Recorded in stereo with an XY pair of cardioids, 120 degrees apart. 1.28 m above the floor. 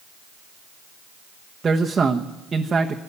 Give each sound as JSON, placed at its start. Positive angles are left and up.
{"t": 1.6, "sound": "a man speaking", "azimuth_deg": -30, "distance_m": 1.2}